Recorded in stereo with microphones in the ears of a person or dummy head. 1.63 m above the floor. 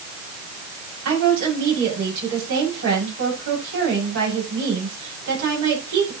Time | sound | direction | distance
1.1 | a woman speaking | 65° right (ahead or behind) | 5.5 m